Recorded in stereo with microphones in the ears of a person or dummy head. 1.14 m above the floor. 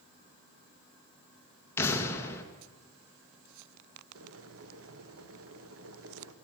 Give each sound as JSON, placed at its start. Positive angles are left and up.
{"t": 1.8, "sound": "an explosion", "side_deg": 15, "distance_m": 1.4}
{"t": 4.2, "sound": "boiling", "side_deg": -75, "distance_m": 1.2}